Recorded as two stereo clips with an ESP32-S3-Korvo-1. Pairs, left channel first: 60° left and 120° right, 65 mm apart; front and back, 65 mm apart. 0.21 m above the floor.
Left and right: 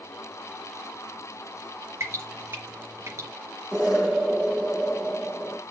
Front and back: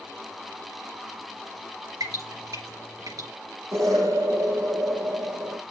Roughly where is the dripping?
Behind.